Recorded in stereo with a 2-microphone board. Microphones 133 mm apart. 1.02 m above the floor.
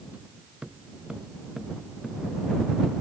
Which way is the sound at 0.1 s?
10° right (ahead or behind).